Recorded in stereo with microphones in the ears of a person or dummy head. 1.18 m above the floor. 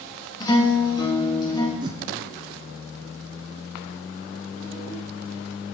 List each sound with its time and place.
0.4 s a guitar: 20° left (ahead or behind), 1.3 m
1.8 s a whoosh: 25° right (ahead or behind), 0.5 m